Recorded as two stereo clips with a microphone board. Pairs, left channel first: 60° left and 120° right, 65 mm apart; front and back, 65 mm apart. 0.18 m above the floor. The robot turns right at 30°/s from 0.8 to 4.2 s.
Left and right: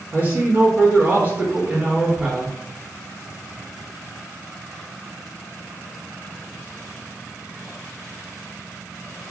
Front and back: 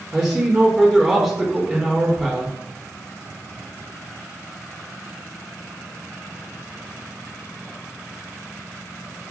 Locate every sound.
0.1 s a man speaking: 110° right, 1.8 m; by 2.5 s 55° right, 1.8 m